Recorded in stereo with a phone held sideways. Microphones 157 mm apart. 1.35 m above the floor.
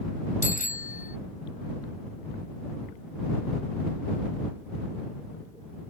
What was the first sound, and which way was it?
A bicycle bell, 55° left (ahead or behind).